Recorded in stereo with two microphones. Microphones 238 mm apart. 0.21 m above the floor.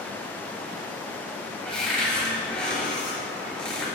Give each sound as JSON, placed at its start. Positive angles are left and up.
{"t": 1.6, "sound": "a cupboard door", "side_deg": 5, "distance_m": 4.0}